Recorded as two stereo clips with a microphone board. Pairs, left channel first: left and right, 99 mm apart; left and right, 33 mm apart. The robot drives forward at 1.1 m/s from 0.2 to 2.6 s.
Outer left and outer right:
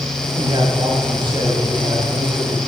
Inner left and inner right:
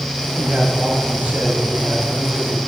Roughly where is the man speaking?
Right.